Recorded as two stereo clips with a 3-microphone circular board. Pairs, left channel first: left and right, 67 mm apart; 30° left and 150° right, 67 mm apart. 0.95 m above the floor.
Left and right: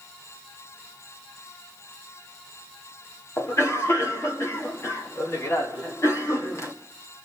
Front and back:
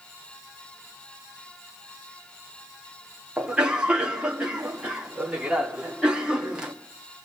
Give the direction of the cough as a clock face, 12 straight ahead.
8 o'clock.